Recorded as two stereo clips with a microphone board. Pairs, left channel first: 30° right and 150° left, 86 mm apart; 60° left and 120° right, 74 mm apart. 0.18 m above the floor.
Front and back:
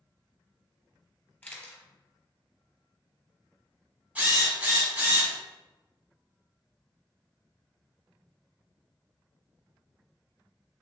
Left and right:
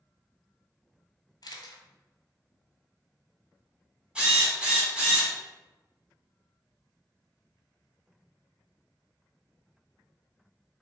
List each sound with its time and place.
1.4 s a camera shutter: 40° left, 0.8 m
4.2 s a drill: 170° right, 1.3 m